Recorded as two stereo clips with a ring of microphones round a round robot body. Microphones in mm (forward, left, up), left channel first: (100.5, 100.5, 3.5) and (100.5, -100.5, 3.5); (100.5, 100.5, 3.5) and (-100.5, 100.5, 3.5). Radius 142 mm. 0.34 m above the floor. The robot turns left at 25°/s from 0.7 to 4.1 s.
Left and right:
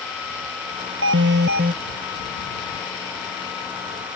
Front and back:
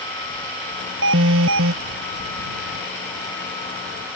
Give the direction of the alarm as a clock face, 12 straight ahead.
4 o'clock.